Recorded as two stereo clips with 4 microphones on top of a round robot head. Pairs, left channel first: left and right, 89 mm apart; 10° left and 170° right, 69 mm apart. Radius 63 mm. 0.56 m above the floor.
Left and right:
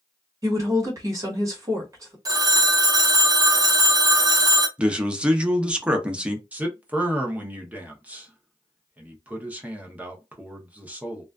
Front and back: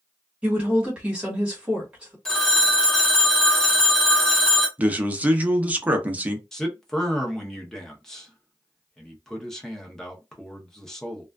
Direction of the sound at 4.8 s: 150° right.